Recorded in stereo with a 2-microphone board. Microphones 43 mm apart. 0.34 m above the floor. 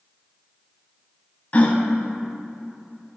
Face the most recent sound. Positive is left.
turn(degrees=35)  # may be behind; listen again after turning